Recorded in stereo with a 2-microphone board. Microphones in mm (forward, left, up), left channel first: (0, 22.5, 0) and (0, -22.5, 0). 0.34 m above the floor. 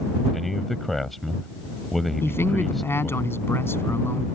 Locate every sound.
0.3 s a man speaking: 5° left (ahead or behind)
2.2 s a man speaking: 65° left (ahead or behind)